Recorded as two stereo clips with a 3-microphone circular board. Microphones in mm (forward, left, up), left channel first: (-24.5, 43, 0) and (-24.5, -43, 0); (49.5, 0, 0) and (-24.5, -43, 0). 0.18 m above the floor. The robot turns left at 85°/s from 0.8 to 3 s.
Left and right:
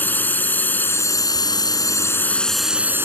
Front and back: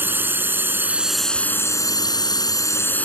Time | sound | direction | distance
0.0 | a drone | 150° left | ?